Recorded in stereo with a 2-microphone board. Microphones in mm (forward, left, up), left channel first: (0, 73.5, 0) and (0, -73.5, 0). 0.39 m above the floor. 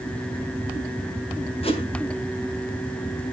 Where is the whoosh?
40° left (ahead or behind), 3 m.